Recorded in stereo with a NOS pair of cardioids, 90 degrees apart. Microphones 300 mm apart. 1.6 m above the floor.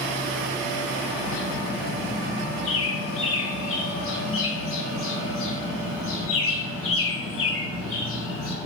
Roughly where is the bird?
Ahead left.